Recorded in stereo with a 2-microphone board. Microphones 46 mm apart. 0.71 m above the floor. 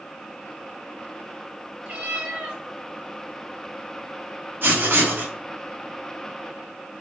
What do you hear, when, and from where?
1.9 s a cat meowing: 25° right (ahead or behind), 1.4 m
4.6 s writing: 50° right (ahead or behind), 1.0 m